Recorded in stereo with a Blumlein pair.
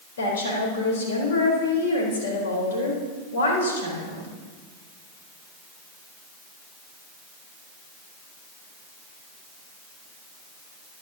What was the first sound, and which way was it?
A woman speaking, 60° left.